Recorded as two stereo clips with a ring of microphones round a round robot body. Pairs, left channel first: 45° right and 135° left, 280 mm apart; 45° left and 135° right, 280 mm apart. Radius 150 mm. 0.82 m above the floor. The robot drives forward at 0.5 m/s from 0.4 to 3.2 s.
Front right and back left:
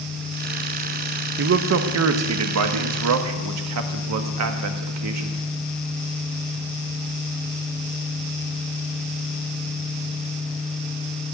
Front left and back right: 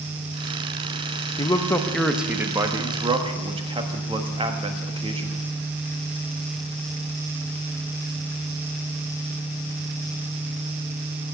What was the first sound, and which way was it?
A man speaking, 110° left.